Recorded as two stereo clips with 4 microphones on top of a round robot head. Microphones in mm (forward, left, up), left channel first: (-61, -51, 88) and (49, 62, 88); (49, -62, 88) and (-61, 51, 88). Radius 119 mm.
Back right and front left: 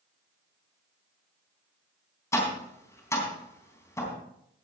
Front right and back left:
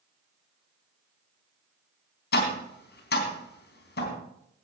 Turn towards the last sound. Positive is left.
turn(degrees=-60)